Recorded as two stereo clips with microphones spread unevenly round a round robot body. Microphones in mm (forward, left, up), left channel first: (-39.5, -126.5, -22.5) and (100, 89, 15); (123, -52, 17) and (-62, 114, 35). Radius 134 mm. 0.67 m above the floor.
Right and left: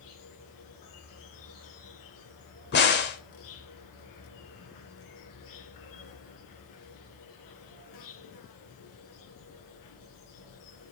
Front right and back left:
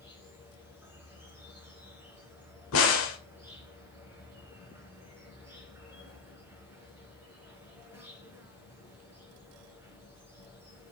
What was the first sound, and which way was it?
An insect, 140° right.